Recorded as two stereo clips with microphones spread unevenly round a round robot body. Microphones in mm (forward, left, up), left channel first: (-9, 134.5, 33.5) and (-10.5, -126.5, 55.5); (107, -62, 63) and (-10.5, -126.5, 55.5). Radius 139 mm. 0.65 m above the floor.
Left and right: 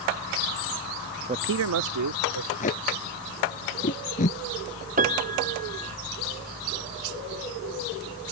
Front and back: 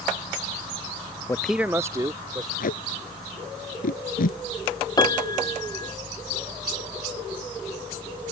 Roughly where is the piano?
Ahead right.